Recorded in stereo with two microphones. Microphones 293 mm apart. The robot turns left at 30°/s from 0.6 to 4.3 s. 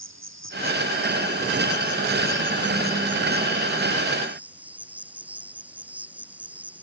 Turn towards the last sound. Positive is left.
turn(degrees=-175)